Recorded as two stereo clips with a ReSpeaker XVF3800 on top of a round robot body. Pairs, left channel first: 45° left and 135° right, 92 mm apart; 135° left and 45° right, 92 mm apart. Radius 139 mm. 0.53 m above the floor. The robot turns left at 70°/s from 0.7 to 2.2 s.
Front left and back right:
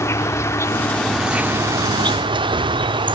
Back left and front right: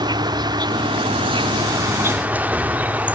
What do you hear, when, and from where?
0.0 s an insect: 10° right; by 3.1 s 115° right